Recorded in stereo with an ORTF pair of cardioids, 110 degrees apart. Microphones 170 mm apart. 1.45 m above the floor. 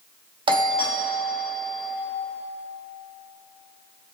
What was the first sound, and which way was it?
A doorbell, 30° right.